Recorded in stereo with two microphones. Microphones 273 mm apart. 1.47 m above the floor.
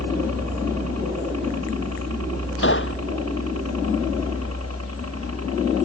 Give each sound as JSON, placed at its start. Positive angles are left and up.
{"t": 0.0, "sound": "a helicopter", "side_deg": -65}
{"t": 2.6, "sound": "a gunshot", "side_deg": 45}